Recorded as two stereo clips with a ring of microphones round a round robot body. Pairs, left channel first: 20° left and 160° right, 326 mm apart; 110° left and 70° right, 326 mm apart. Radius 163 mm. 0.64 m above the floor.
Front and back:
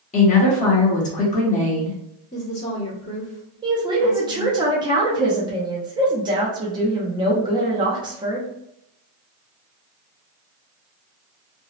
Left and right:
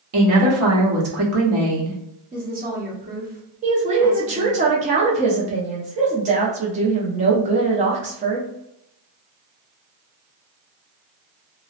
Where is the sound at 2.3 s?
30° right, 1.2 m.